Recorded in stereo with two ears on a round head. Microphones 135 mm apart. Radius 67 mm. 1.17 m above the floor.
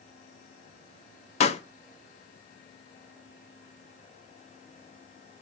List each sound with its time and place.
1.4 s a pop: 40° left (ahead or behind), 0.7 m